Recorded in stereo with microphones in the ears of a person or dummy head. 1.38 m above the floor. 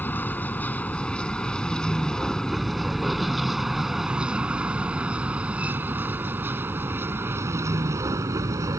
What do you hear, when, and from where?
0.0 s a vehicle: 10° left (ahead or behind); by 8.8 s 20° right (ahead or behind)